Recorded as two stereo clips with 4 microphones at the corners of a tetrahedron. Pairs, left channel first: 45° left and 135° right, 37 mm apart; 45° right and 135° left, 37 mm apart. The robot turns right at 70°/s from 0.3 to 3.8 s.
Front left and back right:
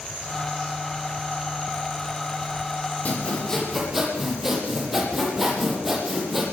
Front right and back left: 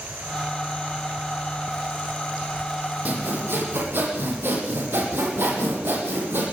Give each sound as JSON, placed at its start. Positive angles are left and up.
{"t": 3.0, "sound": "sawing", "azimuth_deg": 90, "distance_m": 9.0}